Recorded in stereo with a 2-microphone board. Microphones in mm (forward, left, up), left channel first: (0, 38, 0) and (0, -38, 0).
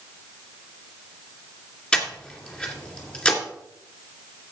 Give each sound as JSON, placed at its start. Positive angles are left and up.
{"t": 1.9, "sound": "breathing", "side_deg": 15, "distance_m": 2.0}